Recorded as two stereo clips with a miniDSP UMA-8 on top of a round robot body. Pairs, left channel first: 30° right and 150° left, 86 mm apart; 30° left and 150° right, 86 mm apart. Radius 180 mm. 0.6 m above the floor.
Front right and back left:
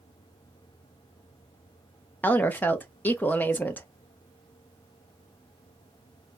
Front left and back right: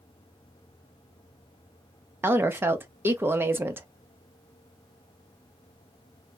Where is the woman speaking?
95° right, 0.8 m.